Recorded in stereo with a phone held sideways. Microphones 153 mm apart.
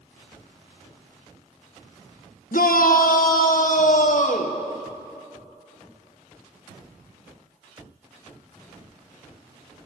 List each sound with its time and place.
2.5 s a shout: 80° left, 1.4 m; by 4.6 s 65° left (ahead or behind), 2 m